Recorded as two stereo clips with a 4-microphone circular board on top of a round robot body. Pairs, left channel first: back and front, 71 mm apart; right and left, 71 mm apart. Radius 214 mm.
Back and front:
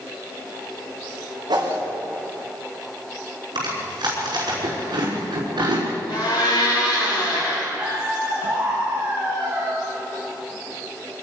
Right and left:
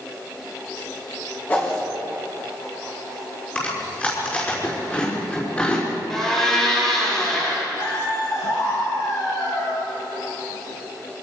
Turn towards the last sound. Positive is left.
turn(degrees=-65)